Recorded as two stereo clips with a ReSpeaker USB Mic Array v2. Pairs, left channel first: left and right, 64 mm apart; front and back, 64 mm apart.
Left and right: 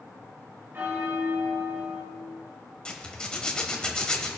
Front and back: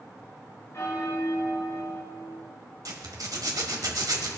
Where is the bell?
40° right, 5 m.